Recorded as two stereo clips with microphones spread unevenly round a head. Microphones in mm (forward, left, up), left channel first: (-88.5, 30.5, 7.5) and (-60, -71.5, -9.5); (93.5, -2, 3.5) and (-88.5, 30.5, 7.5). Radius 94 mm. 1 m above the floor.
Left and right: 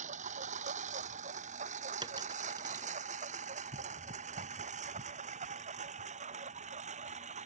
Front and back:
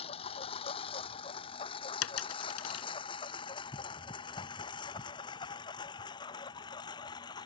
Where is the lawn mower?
75° right; by 7.5 s 80° right.